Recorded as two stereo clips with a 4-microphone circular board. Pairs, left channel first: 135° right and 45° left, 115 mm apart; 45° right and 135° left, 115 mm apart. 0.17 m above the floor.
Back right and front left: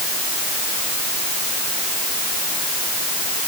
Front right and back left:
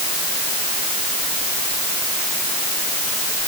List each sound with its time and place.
Only background noise.